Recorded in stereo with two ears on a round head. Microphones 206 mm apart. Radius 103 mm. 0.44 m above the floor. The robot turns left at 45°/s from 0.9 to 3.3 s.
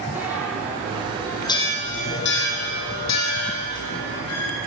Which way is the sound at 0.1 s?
5° right (ahead or behind).